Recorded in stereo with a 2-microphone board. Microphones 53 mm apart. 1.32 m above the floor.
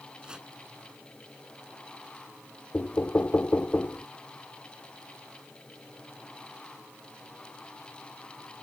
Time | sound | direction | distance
0.2 | chopping | 15° right (ahead or behind) | ?
2.7 | knocking | 40° left (ahead or behind) | ?